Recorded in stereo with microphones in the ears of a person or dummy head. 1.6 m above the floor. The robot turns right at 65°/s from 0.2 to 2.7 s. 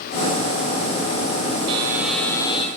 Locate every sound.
1.7 s a buzzer: 30° right, 5.5 m; by 2.7 s 35° left, 5.5 m